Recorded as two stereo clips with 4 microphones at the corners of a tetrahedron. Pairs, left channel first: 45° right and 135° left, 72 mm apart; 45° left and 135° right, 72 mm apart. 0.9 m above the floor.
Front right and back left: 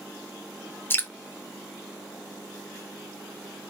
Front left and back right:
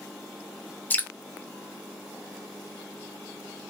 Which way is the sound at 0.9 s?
5° right.